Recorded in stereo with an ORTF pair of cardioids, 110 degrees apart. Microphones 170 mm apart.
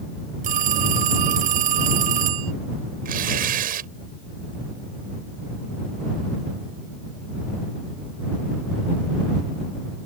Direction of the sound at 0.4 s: 55° right.